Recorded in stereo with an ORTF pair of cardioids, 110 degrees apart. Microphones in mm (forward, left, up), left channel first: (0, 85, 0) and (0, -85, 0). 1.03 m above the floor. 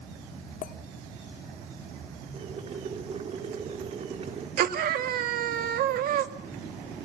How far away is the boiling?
About 3.5 m.